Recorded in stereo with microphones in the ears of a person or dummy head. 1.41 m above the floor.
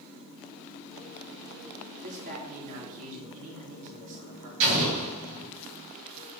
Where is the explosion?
60° right (ahead or behind), 3 m.